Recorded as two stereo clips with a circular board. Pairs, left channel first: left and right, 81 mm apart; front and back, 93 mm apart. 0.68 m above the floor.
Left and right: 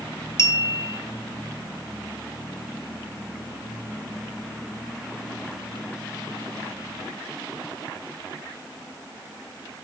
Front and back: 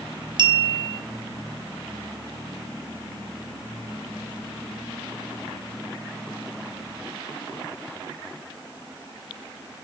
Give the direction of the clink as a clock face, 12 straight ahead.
7 o'clock.